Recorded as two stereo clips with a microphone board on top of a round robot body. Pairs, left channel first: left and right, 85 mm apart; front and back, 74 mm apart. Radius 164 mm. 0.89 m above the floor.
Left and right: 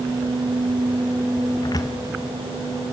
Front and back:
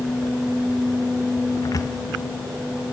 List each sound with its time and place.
1.6 s a cupboard door: 45° left, 0.8 m